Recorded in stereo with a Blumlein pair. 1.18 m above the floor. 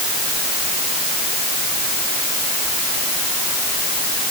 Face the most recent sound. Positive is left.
No sound to turn to.